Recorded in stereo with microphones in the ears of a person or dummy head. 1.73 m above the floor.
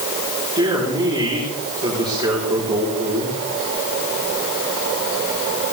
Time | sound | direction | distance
0.6 | a man speaking | 30° right (ahead or behind) | 4 m